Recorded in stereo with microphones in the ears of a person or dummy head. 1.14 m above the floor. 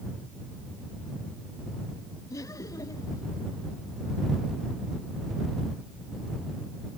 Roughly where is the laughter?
Centre.